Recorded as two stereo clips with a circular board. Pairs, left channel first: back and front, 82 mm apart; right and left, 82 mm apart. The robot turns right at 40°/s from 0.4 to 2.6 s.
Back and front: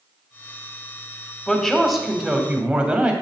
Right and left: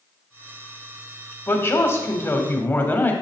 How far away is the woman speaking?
About 1.1 m.